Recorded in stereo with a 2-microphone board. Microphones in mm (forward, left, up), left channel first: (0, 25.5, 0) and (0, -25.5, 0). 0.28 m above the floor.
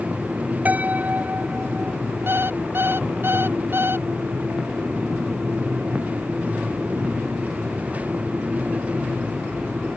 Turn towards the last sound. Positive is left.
turn(degrees=-50)  # may be behind; listen again after turning